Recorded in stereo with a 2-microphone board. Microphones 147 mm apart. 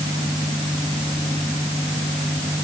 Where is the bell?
I don't hear a bell.